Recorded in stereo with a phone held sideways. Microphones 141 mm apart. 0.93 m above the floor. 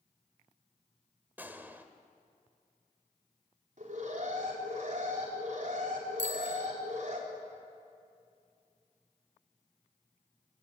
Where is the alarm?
65° right (ahead or behind), 4 m.